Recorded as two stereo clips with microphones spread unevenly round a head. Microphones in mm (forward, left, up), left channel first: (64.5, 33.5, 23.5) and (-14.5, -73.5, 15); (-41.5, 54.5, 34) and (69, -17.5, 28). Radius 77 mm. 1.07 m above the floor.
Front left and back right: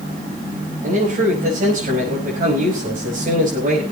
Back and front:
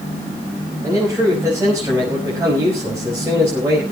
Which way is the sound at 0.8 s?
105° right.